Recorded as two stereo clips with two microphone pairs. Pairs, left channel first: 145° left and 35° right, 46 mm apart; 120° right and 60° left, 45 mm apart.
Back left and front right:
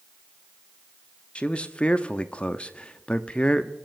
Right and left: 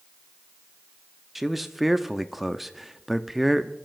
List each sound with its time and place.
1.4 s a man speaking: 150° left, 0.5 m